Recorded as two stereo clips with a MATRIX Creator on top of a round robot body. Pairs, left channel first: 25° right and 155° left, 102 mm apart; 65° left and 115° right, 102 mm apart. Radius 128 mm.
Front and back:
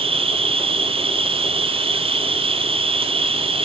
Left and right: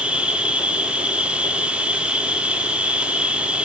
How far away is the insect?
About 1.5 m.